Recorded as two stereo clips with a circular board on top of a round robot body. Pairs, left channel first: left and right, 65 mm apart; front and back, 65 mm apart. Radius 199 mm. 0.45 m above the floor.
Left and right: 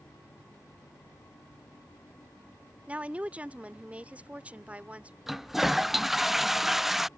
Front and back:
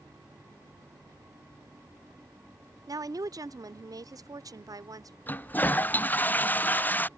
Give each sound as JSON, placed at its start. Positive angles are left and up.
{"t": 2.9, "sound": "a woman speaking", "azimuth_deg": -160}
{"t": 5.3, "sound": "a toilet flushing", "azimuth_deg": -10}